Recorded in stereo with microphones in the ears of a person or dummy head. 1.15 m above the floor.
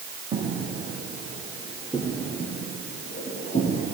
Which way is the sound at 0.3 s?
25° right (ahead or behind).